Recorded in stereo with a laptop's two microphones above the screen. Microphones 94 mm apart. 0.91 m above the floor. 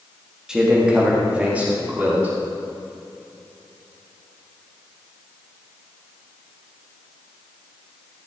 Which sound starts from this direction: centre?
A man speaking, at 0.5 s.